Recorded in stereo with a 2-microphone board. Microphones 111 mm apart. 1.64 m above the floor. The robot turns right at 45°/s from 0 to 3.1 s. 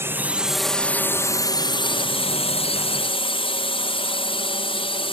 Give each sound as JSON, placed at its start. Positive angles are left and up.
{"t": 0.0, "sound": "a drone", "azimuth_deg": -25}